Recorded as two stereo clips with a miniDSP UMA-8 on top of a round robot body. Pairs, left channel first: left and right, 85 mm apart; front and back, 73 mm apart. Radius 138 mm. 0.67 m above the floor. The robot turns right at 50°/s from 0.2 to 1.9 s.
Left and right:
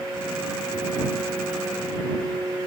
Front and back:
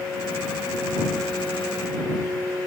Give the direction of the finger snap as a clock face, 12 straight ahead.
I don't hear a finger snap.